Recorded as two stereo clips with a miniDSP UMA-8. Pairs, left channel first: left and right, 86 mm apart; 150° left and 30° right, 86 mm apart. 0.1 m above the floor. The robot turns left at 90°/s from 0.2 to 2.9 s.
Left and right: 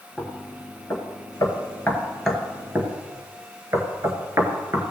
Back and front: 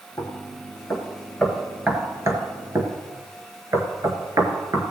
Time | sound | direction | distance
0.2 | knocking | 170° right | 1.8 m